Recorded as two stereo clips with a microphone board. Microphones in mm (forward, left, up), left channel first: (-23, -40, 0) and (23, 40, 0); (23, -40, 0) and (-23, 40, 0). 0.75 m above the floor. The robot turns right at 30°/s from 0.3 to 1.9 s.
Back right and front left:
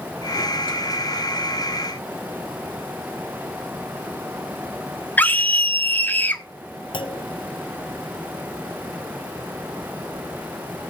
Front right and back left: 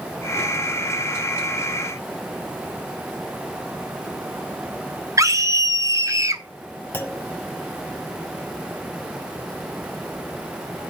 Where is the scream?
170° left, 1.2 m.